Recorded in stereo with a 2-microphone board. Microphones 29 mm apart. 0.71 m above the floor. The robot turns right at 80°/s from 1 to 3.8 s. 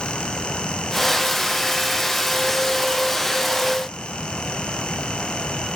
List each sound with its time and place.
Only background noise.